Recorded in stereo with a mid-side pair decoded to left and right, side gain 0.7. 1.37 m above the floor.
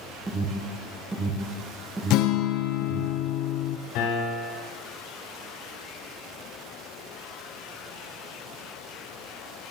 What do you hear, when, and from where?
0.3 s an alarm: 20° right, 1.1 m
2.1 s a guitar: 60° left, 0.6 m
4.0 s a piano: 65° left, 4.5 m